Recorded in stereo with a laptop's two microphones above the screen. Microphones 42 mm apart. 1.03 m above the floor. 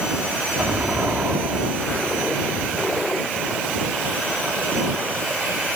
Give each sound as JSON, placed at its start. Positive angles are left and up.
{"t": 0.6, "sound": "an explosion", "side_deg": -40}